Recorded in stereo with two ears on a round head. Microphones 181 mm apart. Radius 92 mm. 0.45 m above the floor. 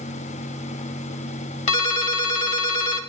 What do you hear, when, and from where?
1.7 s a ringtone: 40° left (ahead or behind), 1.3 m